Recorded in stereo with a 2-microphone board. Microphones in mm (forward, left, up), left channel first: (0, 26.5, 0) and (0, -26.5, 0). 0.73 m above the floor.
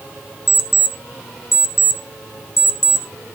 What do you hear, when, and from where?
0.5 s an alarm clock: 70° left (ahead or behind), 1.4 m